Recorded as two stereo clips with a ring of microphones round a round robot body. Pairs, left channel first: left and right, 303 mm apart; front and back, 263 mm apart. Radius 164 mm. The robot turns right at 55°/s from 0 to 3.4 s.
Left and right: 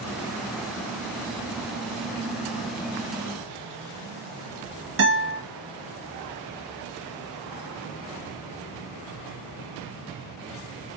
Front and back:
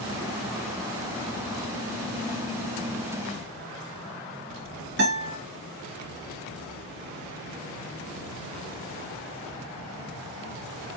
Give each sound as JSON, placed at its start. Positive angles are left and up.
{"t": 5.0, "sound": "a guitar", "azimuth_deg": -120, "distance_m": 3.0}